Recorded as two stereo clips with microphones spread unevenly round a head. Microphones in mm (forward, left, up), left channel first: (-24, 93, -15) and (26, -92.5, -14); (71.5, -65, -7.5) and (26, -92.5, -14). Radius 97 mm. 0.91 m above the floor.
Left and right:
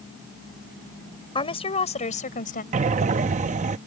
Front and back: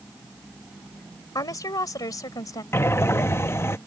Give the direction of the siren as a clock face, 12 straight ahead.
No siren in this recording.